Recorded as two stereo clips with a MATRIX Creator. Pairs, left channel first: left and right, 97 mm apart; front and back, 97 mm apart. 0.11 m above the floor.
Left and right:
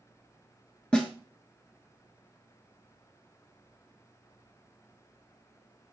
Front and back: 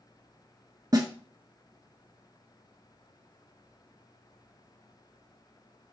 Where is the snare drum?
165° left, 0.8 m.